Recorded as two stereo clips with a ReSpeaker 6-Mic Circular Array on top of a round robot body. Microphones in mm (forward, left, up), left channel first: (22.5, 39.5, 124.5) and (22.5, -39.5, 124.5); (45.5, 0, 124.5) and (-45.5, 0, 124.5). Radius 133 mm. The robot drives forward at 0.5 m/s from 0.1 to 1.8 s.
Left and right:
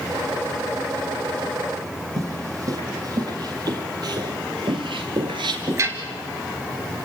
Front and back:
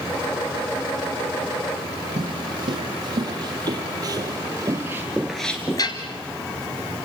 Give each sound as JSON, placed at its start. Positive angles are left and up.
{"t": 2.2, "sound": "footsteps", "azimuth_deg": -140, "distance_m": 4.0}